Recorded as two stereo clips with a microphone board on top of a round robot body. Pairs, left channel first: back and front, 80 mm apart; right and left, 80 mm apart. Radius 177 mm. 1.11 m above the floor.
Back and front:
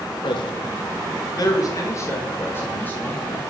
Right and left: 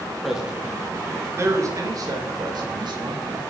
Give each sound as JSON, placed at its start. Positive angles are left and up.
{"t": 0.2, "sound": "a man speaking", "azimuth_deg": 175, "distance_m": 1.8}